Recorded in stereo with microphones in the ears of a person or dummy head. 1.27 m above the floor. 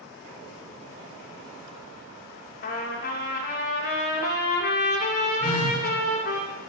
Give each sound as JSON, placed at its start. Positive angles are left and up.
{"t": 2.6, "sound": "a trumpet", "side_deg": 60, "distance_m": 2.0}
{"t": 5.4, "sound": "a phone buzzing", "side_deg": 35, "distance_m": 3.5}